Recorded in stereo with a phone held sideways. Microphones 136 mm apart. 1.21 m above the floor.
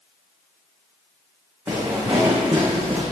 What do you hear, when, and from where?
1.7 s footsteps: 15° right (ahead or behind), 4.5 m